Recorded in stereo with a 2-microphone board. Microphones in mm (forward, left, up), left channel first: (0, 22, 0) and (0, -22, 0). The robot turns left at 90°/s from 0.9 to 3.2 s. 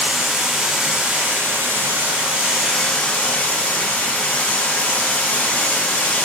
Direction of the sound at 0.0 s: 15° right.